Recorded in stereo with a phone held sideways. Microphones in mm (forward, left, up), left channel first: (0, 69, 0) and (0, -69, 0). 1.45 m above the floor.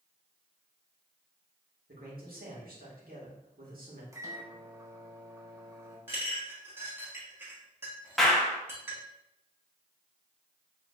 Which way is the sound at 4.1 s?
20° right (ahead or behind).